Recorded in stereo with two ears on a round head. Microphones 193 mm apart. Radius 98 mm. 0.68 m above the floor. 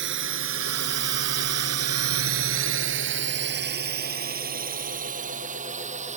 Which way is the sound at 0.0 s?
55° right (ahead or behind).